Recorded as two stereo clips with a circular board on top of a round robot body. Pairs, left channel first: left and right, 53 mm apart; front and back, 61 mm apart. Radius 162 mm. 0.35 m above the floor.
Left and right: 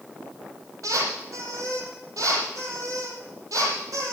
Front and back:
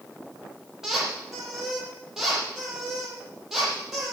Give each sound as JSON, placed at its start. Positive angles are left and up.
{"t": 0.8, "sound": "a squeak", "azimuth_deg": -95, "distance_m": 6.0}